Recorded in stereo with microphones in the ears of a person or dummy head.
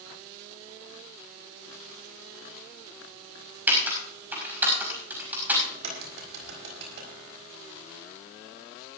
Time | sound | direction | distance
3.7 | typing on a keyboard | 10° right (ahead or behind) | 5.5 m
5.7 | a crack | 70° right (ahead or behind) | 5.5 m